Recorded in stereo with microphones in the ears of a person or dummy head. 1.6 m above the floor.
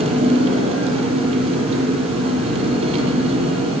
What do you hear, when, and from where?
0.0 s an engine running: 30° right (ahead or behind), 9.5 m